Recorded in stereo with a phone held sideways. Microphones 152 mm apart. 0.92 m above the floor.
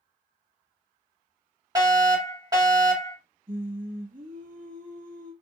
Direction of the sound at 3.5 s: 60° right (ahead or behind).